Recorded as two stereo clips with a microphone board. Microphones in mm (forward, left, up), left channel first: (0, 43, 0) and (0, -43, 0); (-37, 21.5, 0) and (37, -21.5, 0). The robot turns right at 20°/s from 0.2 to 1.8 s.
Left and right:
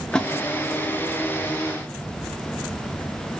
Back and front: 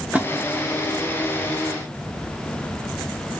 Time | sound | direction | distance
0.1 | a splash | 20° left | 0.5 m